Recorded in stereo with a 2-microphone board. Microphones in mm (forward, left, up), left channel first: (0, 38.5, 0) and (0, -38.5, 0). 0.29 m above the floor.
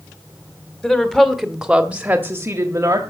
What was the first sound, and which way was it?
A woman speaking, 10° left (ahead or behind).